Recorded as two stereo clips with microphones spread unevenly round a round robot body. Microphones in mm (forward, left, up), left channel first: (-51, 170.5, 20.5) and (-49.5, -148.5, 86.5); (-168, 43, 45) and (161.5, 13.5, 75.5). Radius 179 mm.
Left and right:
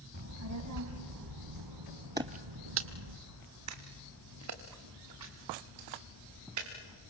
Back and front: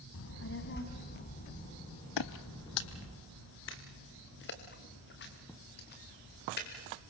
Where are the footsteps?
155° right, 0.5 m; by 6.7 s 120° right, 5 m.